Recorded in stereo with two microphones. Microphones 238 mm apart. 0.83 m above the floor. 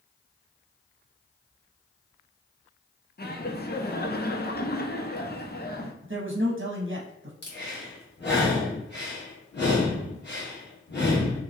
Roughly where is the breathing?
Left.